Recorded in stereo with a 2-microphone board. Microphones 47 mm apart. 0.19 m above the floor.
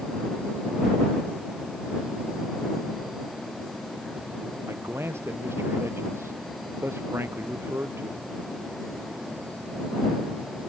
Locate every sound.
4.7 s a man speaking: 60° right (ahead or behind); by 8.3 s 55° right (ahead or behind)